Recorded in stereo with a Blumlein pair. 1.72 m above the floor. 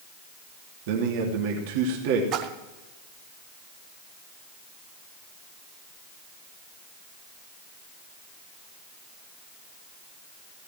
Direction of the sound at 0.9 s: 50° right.